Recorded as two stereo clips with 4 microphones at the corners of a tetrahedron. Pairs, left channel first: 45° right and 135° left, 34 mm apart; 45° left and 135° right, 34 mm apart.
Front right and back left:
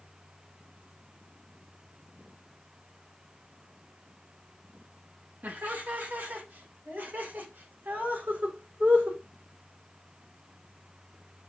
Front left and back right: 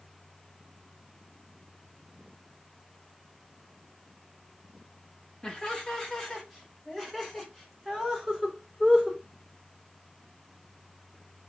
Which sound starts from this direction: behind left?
Laughter, at 5.4 s.